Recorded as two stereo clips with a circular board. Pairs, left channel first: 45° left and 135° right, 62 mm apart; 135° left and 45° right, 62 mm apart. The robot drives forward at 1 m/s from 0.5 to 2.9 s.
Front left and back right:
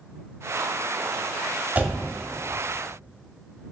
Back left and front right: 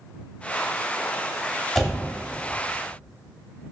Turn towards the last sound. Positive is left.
turn(degrees=-175)